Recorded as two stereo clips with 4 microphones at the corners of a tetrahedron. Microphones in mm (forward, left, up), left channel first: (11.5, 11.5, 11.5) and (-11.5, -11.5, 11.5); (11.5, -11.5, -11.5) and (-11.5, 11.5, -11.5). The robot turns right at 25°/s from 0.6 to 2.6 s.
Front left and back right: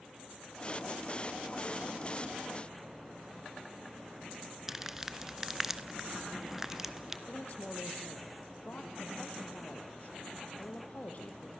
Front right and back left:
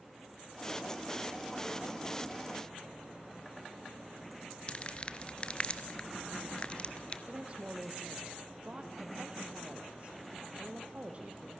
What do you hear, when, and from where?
4.7 s crumpling: 65° right, 1.5 m
7.3 s a woman speaking: 85° left, 4.5 m